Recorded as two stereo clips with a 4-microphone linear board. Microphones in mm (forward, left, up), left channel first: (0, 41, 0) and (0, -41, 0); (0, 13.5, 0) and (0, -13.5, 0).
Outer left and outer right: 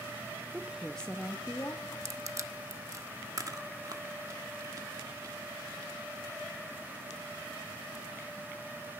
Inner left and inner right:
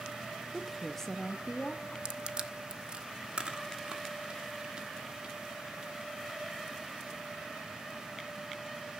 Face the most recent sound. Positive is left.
turn(degrees=-45)  # may be behind; listen again after turning